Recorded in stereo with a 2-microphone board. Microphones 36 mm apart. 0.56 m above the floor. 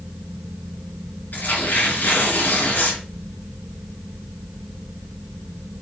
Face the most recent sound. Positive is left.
turn(degrees=55)  # may be behind; listen again after turning